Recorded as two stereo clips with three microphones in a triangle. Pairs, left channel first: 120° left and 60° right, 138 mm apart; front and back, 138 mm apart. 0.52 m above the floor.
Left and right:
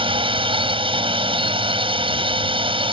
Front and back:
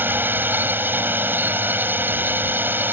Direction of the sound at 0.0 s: 105° right.